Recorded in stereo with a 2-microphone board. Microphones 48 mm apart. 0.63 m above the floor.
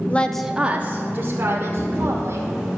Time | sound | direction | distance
0.1 | a woman speaking | 30° left (ahead or behind) | 0.6 m
1.8 | a camera shutter | centre (ahead or behind) | 3 m